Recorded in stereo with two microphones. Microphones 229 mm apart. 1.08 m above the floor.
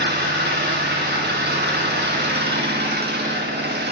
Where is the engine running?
45° right (ahead or behind), 1.7 m.